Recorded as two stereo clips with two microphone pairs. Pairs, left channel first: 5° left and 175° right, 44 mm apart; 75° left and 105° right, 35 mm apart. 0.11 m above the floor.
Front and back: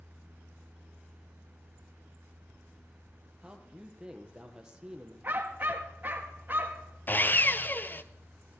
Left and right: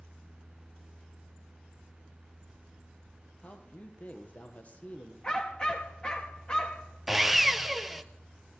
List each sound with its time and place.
3.4 s a man speaking: 115° left, 3.5 m
5.2 s a dog barking: 135° left, 4.5 m
7.1 s sawing: 25° right, 1.0 m